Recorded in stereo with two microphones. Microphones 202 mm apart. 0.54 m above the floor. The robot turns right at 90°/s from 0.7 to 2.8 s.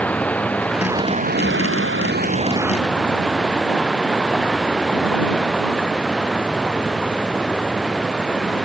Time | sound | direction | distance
0.0 | running water | 175° left | ?